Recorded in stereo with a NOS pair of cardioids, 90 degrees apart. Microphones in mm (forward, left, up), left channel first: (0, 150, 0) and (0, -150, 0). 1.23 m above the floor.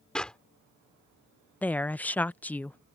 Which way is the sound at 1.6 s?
5° left.